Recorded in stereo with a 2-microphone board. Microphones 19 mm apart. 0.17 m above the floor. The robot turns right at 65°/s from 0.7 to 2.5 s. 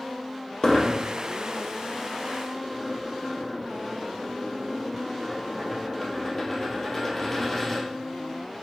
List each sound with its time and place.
0.6 s a dropped coin: 50° left (ahead or behind), 1.8 m; by 7.9 s 10° left (ahead or behind), 1.8 m